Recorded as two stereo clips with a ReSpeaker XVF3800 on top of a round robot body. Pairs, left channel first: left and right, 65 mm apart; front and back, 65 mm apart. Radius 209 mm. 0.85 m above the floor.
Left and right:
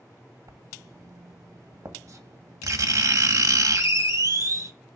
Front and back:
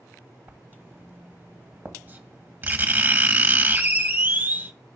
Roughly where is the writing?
Behind right.